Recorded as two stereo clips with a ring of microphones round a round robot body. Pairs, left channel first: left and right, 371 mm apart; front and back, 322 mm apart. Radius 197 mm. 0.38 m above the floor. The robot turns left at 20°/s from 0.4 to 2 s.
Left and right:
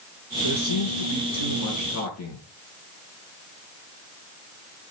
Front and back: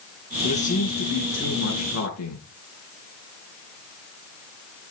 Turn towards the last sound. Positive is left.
turn(degrees=40)